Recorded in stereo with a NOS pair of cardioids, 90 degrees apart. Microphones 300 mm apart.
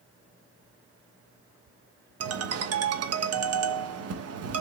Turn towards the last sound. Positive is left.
turn(degrees=-55)